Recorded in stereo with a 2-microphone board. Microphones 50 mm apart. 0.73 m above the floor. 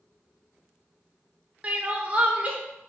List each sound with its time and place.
1.6 s crying: 30° right (ahead or behind), 0.7 m